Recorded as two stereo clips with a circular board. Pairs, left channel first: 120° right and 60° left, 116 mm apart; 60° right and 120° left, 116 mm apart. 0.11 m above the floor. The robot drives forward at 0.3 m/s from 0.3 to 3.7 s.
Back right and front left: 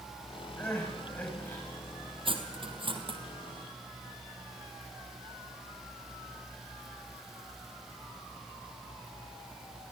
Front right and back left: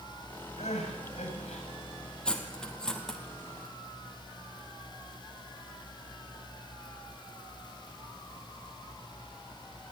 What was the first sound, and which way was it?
Crying, 45° right.